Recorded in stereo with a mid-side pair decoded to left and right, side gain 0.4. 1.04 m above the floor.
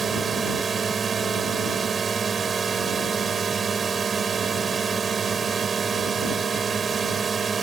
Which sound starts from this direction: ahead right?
A drone, at 0.0 s.